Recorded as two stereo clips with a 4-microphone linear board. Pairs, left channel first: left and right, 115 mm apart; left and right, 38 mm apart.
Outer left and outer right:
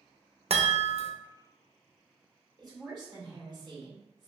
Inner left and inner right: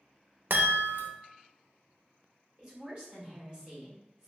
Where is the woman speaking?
40° right (ahead or behind), 1.7 m.